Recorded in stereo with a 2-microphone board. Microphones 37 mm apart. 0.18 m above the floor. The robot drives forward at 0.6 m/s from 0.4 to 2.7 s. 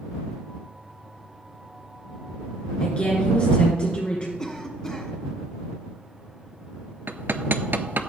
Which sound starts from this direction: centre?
A cough, at 4.4 s.